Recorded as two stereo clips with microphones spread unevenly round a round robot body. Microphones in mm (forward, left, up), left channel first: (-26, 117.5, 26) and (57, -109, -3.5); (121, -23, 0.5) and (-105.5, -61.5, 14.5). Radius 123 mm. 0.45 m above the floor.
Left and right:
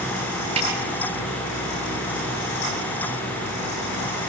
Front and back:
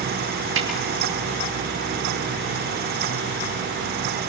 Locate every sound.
0.6 s a snare drum: 135° right, 6.5 m